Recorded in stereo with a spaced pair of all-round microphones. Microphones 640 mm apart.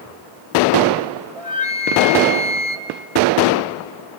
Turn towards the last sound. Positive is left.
turn(degrees=-55)  # may be behind; listen again after turning